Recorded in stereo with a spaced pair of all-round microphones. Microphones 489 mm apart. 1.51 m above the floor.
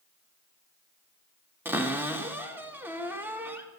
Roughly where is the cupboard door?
Centre.